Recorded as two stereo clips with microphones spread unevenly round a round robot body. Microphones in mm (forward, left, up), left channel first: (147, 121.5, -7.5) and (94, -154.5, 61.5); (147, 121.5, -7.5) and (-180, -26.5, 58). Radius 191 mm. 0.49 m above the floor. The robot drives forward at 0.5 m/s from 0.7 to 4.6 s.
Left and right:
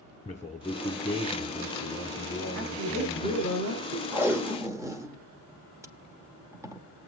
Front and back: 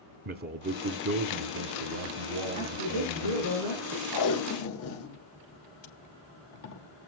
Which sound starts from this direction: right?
A woman speaking, at 2.5 s.